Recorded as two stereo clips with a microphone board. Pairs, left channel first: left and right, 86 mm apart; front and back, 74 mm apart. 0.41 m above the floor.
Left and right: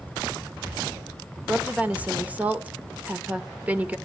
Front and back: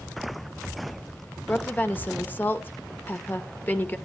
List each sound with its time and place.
1.5 s a woman speaking: 35° right, 0.8 m